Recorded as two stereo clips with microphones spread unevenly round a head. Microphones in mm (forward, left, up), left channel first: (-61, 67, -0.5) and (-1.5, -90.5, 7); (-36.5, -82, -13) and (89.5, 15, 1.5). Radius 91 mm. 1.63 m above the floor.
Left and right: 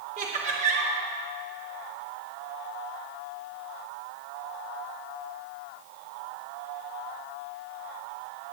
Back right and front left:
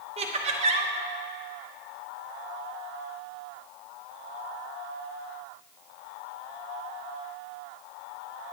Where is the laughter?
15° right, 0.8 m.